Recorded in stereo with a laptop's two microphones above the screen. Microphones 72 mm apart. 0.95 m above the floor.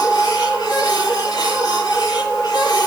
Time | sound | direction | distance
0.0 | a machine running | 70° left (ahead or behind) | 8 m